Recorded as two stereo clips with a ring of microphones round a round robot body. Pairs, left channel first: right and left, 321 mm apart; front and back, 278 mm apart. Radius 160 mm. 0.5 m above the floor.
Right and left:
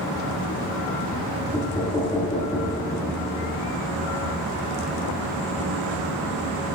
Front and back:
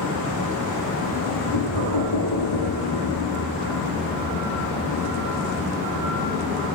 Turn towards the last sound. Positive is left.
turn(degrees=-10)